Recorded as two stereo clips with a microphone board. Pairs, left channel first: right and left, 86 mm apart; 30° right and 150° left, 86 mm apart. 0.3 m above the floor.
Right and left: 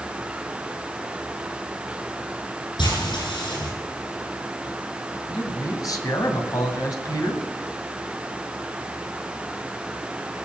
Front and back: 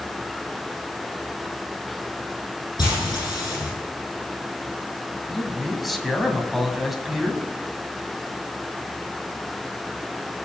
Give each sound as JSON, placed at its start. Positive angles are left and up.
{"t": 2.8, "sound": "frying", "azimuth_deg": -70, "distance_m": 8.5}
{"t": 5.3, "sound": "a man speaking", "azimuth_deg": -120, "distance_m": 2.0}